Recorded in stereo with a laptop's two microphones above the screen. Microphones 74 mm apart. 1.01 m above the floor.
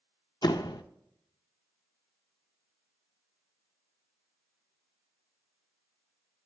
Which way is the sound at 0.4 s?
70° left (ahead or behind).